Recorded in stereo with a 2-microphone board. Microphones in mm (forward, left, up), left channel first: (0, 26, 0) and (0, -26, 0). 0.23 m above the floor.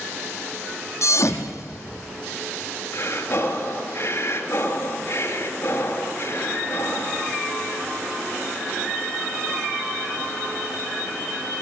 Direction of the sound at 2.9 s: 50° left (ahead or behind).